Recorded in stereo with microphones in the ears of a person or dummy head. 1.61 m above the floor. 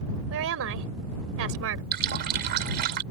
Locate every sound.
0.3 s a woman speaking: 70° right (ahead or behind)
1.9 s a running tap: 60° right (ahead or behind)